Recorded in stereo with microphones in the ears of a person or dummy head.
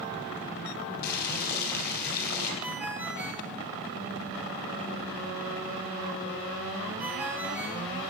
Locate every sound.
1.0 s boiling: 50° left (ahead or behind), 4 m
2.6 s a ringtone: 10° right (ahead or behind), 2.5 m